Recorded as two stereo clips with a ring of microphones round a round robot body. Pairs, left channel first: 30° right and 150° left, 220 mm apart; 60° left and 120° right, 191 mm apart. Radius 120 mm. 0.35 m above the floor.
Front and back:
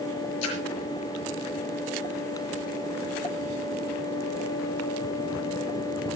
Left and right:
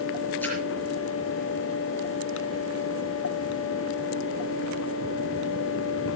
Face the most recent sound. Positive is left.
turn(degrees=-20)